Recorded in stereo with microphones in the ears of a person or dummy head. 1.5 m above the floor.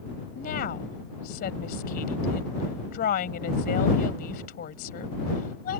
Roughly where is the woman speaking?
Left.